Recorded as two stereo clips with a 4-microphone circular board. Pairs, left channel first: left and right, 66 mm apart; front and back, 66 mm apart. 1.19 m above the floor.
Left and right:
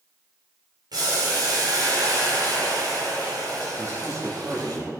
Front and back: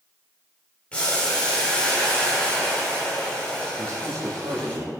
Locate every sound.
0.9 s boiling: 75° right, 4.5 m
3.8 s a man speaking: 135° right, 3 m